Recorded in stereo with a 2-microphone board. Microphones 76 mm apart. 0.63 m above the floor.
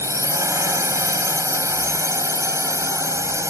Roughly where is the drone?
Right.